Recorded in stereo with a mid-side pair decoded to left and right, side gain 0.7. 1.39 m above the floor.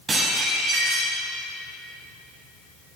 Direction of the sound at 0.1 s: 35° right.